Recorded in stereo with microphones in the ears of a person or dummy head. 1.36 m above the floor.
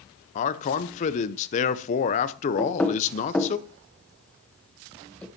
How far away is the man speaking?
About 0.8 m.